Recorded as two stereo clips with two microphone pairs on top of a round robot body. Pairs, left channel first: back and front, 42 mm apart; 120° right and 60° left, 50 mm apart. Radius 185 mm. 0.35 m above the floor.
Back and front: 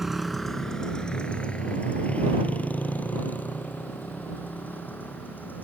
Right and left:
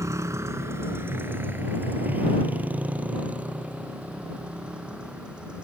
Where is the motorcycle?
80° left; by 5.6 s 135° left.